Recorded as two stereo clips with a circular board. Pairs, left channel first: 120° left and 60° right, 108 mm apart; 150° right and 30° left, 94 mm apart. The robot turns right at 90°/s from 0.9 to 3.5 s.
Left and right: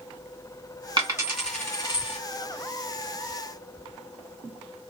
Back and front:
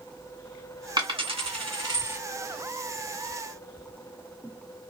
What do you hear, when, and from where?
1.0 s a dropped coin: 15° right, 1.8 m; by 2.2 s 100° left, 1.8 m